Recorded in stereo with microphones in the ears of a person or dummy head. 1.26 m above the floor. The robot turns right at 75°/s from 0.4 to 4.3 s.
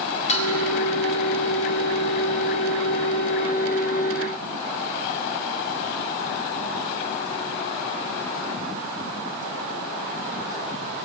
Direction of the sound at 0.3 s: 35° left (ahead or behind).